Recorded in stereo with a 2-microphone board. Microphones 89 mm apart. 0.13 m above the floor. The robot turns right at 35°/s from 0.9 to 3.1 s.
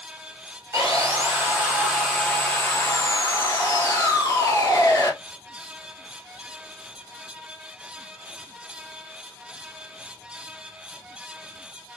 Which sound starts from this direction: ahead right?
Sawing, at 0.7 s.